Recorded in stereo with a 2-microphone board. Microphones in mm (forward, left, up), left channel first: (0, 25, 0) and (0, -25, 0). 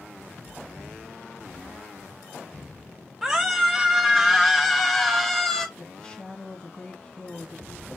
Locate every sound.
3.2 s a scream: 10° right (ahead or behind), 5 m; by 5.7 s 5° left (ahead or behind), 2.5 m
5.8 s a woman speaking: 15° left (ahead or behind), 2.5 m